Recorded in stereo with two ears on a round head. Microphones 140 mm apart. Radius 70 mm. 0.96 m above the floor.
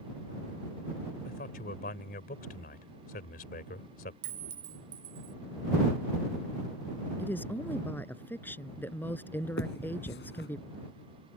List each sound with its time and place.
1.2 s a man speaking: 60° left (ahead or behind)
4.2 s a clink: 85° right
7.2 s a woman speaking: 10° left (ahead or behind)
9.6 s a finger snap: 80° left